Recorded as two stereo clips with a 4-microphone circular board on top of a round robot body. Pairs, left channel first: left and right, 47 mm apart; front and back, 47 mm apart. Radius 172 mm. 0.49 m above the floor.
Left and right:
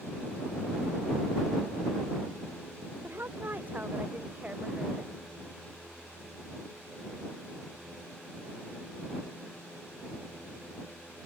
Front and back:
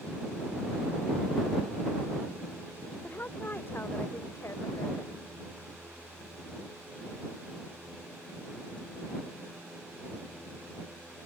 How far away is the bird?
I don't hear a bird.